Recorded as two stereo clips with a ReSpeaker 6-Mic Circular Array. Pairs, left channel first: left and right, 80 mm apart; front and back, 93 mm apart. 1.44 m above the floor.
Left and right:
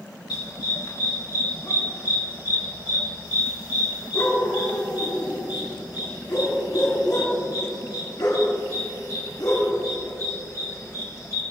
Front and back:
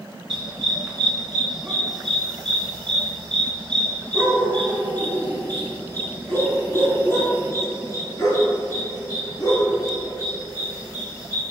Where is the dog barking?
100° left, 5 m; by 11.4 s 45° left, 8 m.